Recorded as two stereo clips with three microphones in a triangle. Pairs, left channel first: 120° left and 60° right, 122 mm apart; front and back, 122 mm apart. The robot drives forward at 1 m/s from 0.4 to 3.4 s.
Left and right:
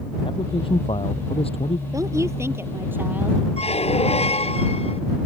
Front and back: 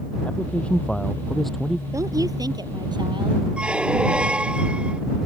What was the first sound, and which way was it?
A man speaking, 80° left.